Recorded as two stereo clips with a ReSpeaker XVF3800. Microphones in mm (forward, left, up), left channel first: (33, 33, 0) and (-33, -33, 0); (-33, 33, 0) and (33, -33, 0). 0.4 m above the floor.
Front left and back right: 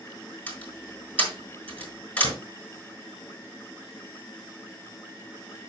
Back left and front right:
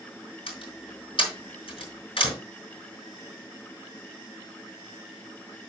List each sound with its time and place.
0.5 s a door slam: 120° left, 4.5 m